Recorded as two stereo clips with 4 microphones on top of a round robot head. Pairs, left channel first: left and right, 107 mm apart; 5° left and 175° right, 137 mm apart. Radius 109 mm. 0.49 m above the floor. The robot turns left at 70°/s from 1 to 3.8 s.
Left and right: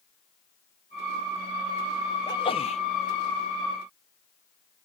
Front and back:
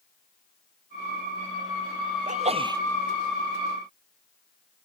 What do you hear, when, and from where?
2.3 s a sneeze: 155° left; by 2.8 s 115° left